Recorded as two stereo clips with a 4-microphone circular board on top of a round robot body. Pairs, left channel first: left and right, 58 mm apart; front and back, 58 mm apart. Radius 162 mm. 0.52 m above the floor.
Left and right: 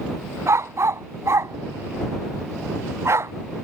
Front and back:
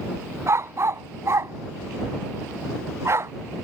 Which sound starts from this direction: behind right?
A dog barking, at 0.5 s.